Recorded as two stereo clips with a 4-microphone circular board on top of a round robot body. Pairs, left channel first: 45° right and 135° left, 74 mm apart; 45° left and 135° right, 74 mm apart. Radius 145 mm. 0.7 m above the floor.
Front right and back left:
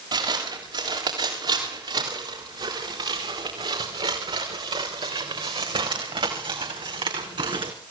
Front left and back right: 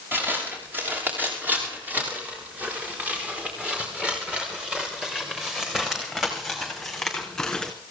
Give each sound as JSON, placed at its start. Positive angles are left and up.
{"t": 0.1, "sound": "footsteps", "azimuth_deg": 160, "distance_m": 7.0}